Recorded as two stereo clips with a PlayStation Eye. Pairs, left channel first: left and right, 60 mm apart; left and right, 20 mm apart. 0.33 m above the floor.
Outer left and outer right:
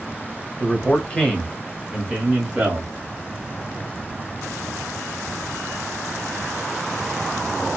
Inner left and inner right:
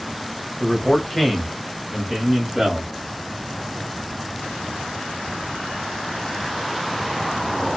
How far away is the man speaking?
About 1.0 m.